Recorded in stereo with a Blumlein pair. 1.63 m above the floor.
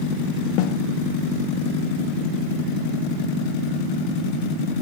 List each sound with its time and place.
0.6 s a snare drum: 45° left